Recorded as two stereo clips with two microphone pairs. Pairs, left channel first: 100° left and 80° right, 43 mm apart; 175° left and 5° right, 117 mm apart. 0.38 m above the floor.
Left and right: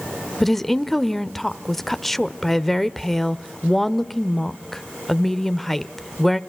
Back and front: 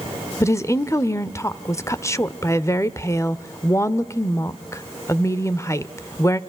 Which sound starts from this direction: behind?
A woman speaking, at 0.4 s.